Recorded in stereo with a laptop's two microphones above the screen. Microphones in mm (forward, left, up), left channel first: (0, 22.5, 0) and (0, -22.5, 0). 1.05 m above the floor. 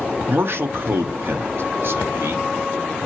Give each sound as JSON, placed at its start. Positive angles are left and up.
{"t": 0.3, "sound": "a man speaking", "side_deg": -60, "distance_m": 0.6}